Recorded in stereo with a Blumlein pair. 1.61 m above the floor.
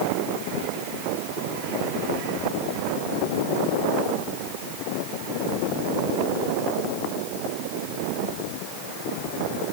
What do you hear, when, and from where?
Only background noise.